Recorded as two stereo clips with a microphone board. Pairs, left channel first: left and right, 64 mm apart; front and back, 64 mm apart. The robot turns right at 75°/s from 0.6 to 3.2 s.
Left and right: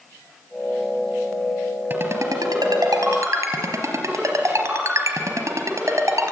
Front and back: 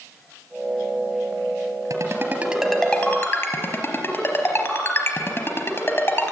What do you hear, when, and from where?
1.9 s a ringtone: 150° right, 3.5 m; by 6.3 s 50° right, 3.5 m